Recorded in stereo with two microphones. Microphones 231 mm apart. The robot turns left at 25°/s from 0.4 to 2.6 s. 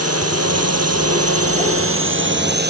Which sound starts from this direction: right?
A drone, at 0.0 s.